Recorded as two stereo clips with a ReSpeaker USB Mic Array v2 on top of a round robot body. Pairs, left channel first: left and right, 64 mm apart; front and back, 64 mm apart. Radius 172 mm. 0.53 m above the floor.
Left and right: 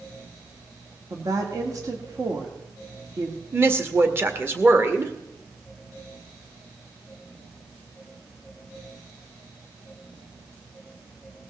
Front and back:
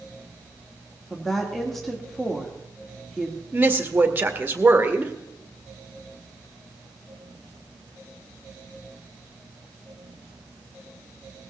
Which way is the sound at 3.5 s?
130° right.